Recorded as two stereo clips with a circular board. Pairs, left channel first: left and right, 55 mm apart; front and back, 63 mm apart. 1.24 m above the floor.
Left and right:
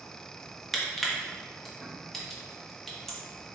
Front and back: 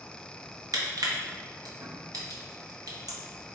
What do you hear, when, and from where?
0.7 s crushing: 175° left, 0.9 m